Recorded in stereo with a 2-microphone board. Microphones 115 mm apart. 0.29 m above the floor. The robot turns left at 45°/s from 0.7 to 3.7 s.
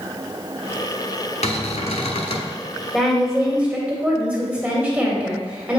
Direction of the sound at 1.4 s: 100° left.